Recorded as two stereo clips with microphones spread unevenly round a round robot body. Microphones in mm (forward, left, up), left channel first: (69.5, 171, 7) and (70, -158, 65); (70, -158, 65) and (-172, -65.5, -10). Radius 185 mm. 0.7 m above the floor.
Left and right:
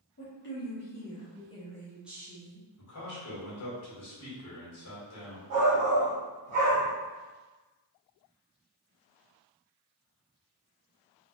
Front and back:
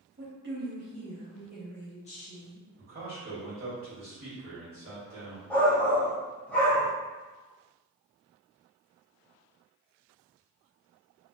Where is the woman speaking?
135° left, 1.5 m; by 2.7 s 20° right, 0.9 m.